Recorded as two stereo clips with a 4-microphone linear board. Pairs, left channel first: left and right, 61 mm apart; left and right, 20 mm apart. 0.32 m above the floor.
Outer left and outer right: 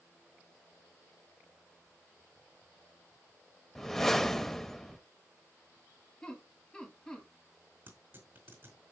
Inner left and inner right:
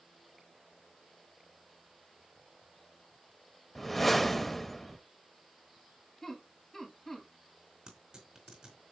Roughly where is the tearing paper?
Right.